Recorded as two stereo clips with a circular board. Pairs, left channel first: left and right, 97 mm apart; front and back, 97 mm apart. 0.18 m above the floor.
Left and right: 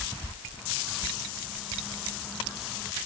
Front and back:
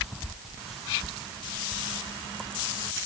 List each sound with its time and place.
Only background noise.